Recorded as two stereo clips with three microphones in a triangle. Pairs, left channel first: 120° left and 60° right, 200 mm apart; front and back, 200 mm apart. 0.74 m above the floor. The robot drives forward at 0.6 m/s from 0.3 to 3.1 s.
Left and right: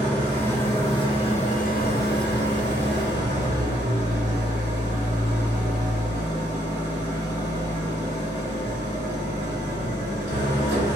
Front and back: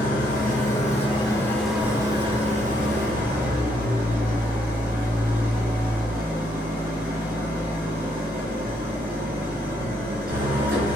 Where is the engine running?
40° left, 1.1 m; by 11.0 s 140° left, 1.1 m.